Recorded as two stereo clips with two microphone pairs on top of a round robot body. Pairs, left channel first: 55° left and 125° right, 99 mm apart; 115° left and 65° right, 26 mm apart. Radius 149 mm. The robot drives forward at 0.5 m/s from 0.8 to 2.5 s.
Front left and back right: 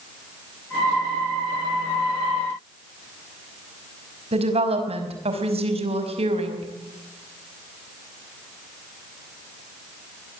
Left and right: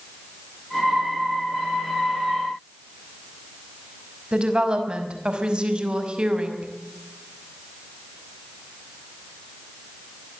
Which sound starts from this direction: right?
A woman speaking, at 4.3 s.